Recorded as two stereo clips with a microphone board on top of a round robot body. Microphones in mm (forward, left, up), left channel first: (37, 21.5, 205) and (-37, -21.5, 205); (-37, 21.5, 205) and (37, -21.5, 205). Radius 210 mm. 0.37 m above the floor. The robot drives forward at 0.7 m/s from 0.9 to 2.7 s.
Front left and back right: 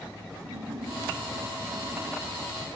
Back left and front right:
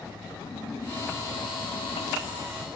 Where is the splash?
165° right, 3.5 m; by 2.4 s 170° right, 4.5 m.